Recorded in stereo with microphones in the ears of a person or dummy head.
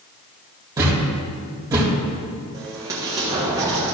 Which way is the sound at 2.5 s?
20° right (ahead or behind).